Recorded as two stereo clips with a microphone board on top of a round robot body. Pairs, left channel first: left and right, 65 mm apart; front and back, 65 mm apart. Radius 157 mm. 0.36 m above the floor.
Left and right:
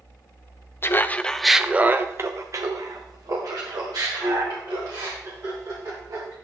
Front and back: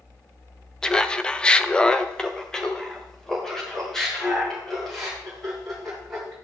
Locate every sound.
0.8 s laughter: 75° left, 0.9 m; by 6.3 s 85° right, 4 m